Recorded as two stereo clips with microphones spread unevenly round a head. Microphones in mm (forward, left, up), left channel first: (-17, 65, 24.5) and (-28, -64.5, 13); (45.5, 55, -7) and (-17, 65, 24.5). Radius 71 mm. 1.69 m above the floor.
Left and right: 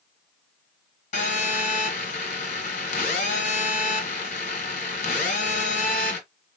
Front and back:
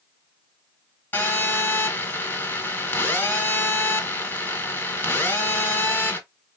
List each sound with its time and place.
1.1 s a phone buzzing: 65° left, 2.5 m